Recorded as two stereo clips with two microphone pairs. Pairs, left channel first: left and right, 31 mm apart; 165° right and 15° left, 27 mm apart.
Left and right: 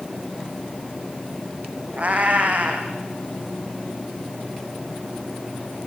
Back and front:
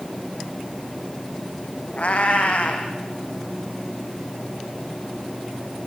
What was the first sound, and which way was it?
A cat meowing, 125° right.